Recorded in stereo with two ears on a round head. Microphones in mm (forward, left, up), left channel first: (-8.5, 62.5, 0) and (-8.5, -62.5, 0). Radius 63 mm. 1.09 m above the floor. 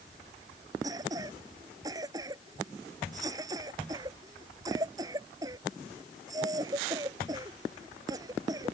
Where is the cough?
25° right (ahead or behind).